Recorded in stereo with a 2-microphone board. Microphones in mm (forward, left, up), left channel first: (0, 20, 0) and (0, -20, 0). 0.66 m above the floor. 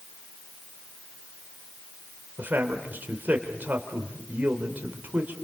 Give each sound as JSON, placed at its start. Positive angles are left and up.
{"t": 2.4, "sound": "a man speaking", "side_deg": -50, "distance_m": 2.5}